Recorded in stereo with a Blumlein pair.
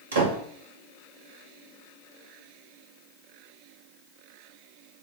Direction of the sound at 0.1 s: 65° right.